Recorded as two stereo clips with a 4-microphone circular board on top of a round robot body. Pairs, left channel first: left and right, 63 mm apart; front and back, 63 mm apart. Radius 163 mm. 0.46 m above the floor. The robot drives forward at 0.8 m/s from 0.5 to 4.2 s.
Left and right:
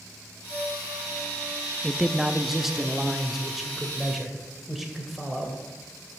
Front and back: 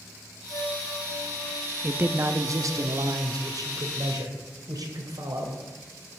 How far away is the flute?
About 3.5 m.